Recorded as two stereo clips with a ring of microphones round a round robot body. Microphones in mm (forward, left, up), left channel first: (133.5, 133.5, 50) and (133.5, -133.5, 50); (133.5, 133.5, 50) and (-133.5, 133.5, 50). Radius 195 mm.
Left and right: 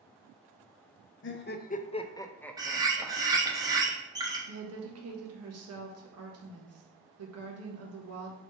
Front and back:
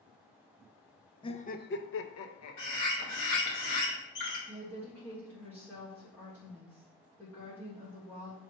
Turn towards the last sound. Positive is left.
turn(degrees=-80)